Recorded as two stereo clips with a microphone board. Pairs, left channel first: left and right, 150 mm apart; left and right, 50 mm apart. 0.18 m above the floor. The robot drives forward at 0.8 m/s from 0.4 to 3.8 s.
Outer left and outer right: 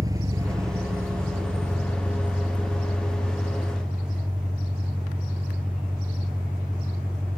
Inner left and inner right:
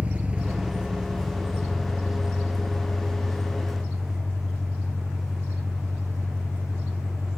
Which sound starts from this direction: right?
An engine running, at 0.0 s.